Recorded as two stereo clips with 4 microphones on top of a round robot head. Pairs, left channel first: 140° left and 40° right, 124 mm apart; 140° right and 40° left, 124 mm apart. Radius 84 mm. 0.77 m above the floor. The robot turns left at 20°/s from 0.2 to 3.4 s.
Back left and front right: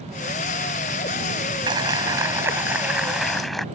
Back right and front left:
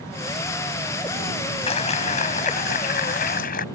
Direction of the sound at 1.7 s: 95° right.